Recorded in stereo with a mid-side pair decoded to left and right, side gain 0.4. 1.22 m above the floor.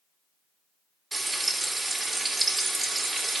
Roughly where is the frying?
Ahead right.